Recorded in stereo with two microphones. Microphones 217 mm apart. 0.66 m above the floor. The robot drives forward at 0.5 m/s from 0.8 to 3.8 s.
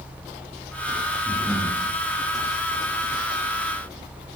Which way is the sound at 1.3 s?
Centre (ahead or behind).